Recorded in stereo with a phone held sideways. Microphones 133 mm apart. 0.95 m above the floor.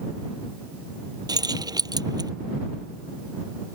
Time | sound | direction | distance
1.3 | keys jangling | 25° right (ahead or behind) | ?